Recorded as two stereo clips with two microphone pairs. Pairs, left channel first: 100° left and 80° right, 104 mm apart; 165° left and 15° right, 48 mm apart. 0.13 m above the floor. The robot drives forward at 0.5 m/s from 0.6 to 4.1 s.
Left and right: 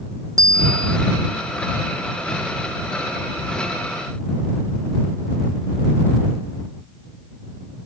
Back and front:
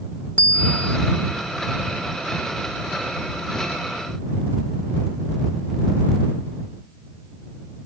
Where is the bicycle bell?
135° right.